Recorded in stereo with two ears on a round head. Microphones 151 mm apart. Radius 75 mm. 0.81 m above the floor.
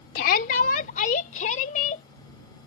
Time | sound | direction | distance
0.1 | a shout | 55° left (ahead or behind) | ?